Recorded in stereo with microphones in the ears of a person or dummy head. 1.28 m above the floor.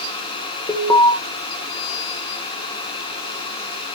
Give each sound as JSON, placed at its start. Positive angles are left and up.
{"t": 0.7, "sound": "an alarm", "side_deg": 15, "distance_m": 2.5}